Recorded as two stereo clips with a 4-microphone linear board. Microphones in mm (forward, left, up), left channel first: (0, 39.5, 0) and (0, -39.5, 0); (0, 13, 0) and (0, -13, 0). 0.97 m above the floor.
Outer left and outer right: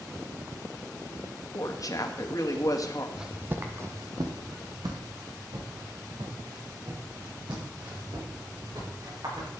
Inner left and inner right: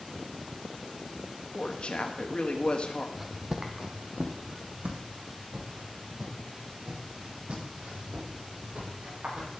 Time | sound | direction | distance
1.5 | a woman speaking | 50° left (ahead or behind) | 1.7 m
3.2 | footsteps | 5° right (ahead or behind) | 1.3 m